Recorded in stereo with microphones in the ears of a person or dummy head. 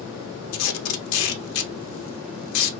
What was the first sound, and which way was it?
Tape being pulled, 70° left (ahead or behind).